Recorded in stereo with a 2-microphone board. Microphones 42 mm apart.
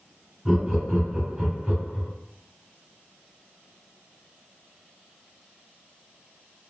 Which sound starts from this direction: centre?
Laughter, at 0.5 s.